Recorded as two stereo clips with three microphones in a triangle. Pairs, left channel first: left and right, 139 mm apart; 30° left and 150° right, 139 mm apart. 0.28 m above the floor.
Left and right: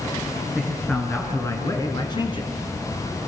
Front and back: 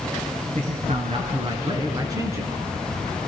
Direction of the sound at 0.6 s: Straight behind.